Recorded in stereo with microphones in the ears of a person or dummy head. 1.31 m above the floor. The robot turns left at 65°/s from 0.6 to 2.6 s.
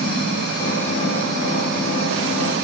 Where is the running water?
30° left, 6.5 m; by 2.6 s 100° right, 6.5 m.